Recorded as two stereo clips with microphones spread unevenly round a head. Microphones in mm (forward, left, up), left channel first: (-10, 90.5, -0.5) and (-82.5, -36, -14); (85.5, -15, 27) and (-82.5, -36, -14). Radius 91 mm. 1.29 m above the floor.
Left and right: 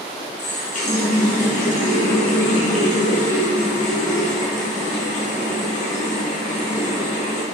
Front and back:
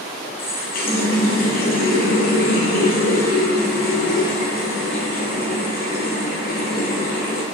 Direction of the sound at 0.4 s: 25° left.